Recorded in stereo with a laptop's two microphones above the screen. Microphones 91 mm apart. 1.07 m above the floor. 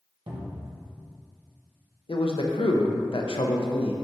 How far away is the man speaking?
About 0.6 m.